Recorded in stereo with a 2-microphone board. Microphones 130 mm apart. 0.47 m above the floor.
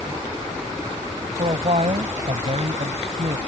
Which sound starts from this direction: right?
A man speaking, at 1.4 s.